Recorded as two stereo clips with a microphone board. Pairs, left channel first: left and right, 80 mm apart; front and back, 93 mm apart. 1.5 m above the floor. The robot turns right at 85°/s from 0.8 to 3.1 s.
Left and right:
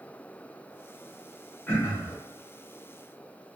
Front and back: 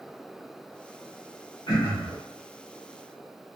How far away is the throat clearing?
About 1.1 m.